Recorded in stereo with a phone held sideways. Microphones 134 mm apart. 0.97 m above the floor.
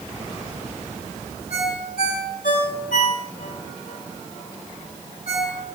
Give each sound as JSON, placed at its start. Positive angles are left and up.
{"t": 1.5, "sound": "a ringtone", "side_deg": 80, "distance_m": 7.5}